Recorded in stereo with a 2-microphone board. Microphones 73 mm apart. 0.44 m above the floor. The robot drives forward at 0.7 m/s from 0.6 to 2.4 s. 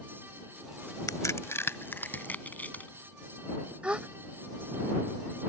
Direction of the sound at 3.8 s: 15° right (ahead or behind).